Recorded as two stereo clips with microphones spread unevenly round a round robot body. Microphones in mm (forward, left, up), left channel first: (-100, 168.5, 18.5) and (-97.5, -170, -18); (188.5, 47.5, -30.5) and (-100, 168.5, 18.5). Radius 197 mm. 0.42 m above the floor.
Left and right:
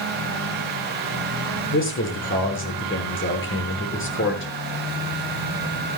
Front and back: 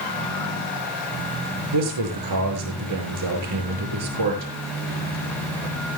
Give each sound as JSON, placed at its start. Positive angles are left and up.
{"t": 1.7, "sound": "a man speaking", "azimuth_deg": 145, "distance_m": 7.0}